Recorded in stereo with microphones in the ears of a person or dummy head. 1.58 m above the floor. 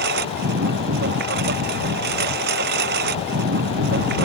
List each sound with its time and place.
0.0 s a lawn mower: 55° right (ahead or behind)